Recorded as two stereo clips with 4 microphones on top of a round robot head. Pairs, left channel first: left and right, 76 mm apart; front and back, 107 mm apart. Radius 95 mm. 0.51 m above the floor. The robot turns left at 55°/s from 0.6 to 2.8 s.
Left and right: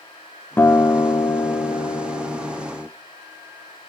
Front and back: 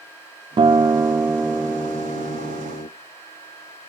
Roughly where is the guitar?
Behind left.